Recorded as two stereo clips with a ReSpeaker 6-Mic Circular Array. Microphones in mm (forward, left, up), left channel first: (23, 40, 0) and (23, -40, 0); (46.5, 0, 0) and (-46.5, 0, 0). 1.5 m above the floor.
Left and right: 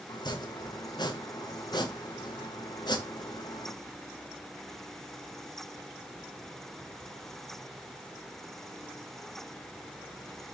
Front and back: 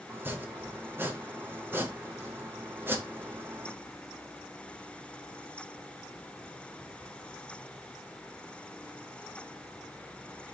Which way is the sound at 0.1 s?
115° left.